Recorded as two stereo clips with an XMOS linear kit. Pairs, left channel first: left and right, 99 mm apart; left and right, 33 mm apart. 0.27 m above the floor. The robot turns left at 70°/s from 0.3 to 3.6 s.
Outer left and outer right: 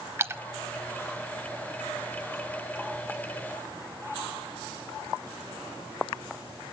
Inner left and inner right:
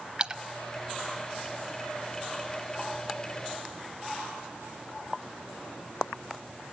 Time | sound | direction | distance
0.2 | a splash | 25° right (ahead or behind) | 0.7 m